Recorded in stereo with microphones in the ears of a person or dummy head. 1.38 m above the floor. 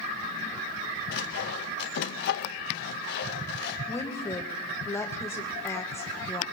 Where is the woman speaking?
15° left (ahead or behind), 1.3 m.